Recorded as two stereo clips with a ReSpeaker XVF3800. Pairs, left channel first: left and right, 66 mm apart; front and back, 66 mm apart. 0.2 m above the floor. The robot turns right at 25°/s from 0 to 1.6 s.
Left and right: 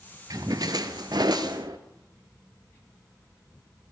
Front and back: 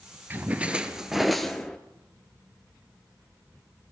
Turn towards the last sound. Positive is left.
turn(degrees=-85)